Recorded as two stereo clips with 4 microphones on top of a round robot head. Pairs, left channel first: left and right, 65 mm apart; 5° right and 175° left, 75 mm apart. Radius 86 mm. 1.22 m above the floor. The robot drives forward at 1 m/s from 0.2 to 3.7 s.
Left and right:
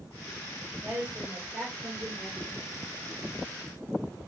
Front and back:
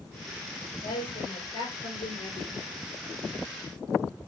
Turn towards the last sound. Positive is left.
turn(degrees=-25)